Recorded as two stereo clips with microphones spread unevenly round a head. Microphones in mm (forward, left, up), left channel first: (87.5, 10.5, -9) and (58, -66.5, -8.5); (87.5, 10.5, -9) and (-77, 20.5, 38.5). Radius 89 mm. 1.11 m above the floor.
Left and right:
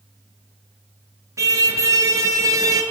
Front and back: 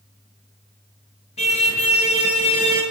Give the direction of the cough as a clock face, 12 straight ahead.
No cough in this recording.